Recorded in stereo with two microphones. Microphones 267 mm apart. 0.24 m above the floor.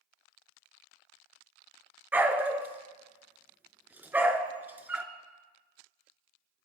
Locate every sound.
2.1 s a dog barking: 5° right (ahead or behind), 1.2 m